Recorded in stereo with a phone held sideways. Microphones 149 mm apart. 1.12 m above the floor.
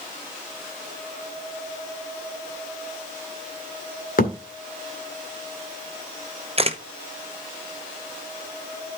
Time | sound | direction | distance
4.2 | a thud | 70° left (ahead or behind) | 1.8 m
6.6 | a camera shutter | 40° right (ahead or behind) | 0.8 m